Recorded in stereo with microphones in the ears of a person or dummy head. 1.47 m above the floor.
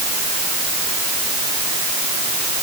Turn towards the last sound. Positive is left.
No sound to turn to.